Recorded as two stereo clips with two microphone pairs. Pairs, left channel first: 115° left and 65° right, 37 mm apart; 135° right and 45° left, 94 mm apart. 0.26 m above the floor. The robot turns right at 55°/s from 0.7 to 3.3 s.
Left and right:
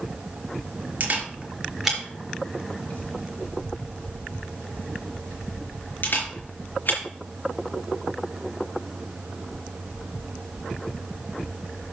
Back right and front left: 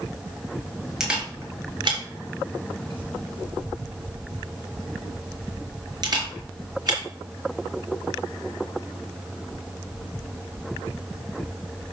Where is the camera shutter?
35° right, 4 m; by 7.0 s 90° left, 4 m.